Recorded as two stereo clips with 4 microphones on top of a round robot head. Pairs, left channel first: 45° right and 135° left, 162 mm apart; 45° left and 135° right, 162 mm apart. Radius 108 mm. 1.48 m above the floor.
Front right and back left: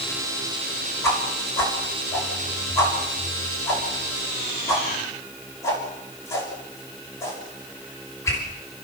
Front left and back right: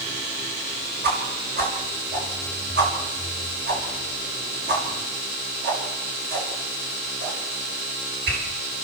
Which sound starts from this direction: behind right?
A whoosh, at 1.0 s.